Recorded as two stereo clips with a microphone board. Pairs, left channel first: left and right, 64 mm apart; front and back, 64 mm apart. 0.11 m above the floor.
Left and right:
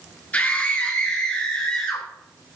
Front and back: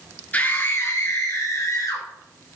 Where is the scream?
45° left, 1.5 m; by 2.0 s 15° left, 3 m.